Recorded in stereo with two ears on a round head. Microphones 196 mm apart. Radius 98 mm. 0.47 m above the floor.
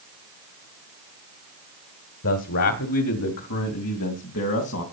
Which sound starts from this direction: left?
A man speaking, at 2.2 s.